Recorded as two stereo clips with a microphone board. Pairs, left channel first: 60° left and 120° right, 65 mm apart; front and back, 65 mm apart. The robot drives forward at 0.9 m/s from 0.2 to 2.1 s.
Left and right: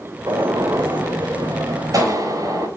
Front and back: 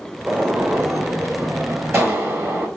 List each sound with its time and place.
0.3 s a gunshot: 110° right, 3 m; by 2.7 s 135° right, 4 m